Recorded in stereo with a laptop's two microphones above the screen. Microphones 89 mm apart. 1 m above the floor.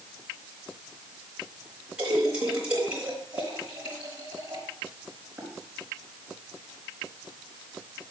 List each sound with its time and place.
2.0 s a splash: 15° right (ahead or behind), 3.5 m